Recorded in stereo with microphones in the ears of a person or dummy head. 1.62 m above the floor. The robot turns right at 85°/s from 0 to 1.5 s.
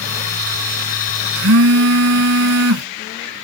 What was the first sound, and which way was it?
A phone buzzing, 65° right (ahead or behind).